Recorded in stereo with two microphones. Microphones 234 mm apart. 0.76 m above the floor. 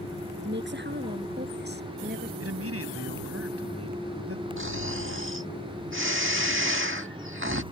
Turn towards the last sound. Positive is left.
turn(degrees=-60)  # may be behind; listen again after turning